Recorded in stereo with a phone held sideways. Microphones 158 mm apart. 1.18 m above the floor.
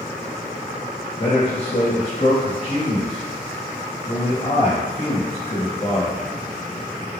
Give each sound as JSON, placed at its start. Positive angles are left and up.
{"t": 1.2, "sound": "a man speaking", "side_deg": 40, "distance_m": 1.4}